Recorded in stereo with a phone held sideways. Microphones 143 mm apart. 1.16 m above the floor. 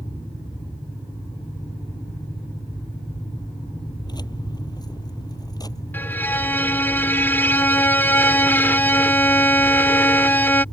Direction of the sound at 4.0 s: 30° left (ahead or behind).